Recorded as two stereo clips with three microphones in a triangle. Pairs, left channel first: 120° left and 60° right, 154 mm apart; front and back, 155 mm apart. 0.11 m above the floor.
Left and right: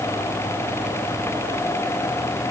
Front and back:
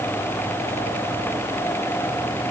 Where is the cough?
I don't hear a cough.